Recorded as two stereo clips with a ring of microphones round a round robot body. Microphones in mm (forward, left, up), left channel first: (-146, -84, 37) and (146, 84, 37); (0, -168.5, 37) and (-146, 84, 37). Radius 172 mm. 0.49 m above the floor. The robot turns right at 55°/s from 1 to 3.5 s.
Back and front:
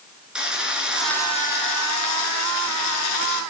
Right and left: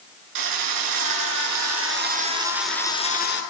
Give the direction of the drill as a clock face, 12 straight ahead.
8 o'clock.